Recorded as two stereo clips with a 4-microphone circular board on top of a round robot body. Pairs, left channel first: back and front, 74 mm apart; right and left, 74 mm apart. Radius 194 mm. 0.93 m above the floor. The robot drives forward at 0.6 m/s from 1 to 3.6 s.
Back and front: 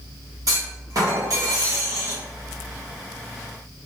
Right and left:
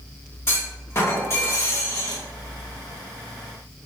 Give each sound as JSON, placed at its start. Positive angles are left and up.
{"t": 0.5, "sound": "a clunk", "azimuth_deg": -35, "distance_m": 2.0}